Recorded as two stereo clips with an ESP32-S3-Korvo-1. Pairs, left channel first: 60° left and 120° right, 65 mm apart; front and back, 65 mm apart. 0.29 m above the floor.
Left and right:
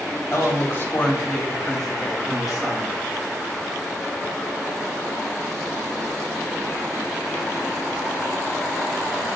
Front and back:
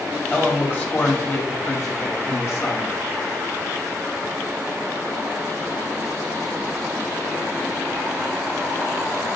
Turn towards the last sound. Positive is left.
turn(degrees=-40)